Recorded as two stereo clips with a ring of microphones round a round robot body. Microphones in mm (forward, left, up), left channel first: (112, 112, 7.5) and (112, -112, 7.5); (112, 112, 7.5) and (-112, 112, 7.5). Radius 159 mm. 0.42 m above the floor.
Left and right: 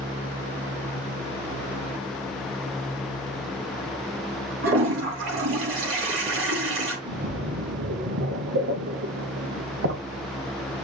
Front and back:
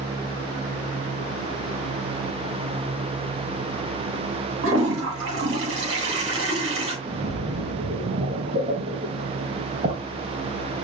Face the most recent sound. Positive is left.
turn(degrees=-120)